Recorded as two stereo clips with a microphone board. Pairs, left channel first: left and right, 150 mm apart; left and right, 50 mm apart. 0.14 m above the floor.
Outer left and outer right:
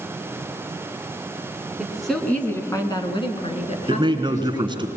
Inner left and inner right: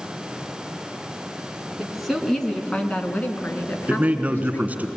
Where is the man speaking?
30° right (ahead or behind), 1.4 m.